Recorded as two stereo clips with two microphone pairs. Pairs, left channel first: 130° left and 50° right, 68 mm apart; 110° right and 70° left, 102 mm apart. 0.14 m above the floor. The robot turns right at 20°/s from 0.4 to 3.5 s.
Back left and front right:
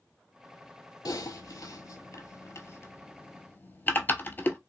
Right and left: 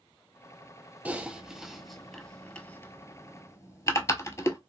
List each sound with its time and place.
1.1 s typing on a keyboard: 140° left, 0.6 m; by 4.6 s 170° right, 0.6 m